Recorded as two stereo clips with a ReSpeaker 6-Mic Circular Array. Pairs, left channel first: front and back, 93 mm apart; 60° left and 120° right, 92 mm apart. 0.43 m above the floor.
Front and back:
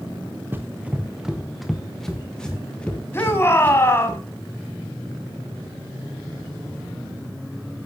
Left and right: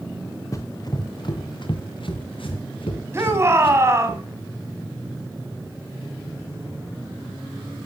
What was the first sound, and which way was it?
Running footsteps, 115° left.